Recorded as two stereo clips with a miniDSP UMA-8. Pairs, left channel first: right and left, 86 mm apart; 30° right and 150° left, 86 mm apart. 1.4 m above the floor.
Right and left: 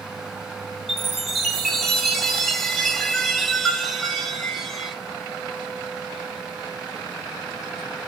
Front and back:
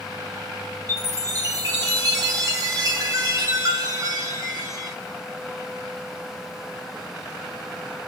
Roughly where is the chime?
Behind.